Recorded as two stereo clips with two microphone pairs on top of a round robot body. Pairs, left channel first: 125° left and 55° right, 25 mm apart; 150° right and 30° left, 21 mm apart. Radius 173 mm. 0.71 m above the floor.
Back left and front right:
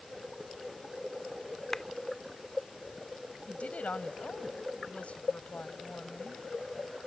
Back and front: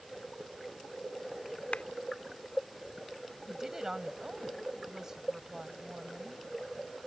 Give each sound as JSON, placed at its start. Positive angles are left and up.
{"t": 1.7, "sound": "a clap", "azimuth_deg": -155}
{"t": 3.5, "sound": "a woman speaking", "azimuth_deg": 95}